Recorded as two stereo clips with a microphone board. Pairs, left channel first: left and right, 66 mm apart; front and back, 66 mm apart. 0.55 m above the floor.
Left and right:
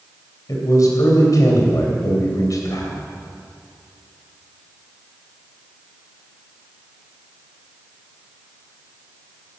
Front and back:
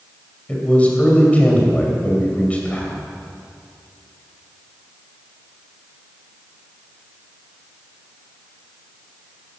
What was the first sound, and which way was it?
A man speaking, 65° left.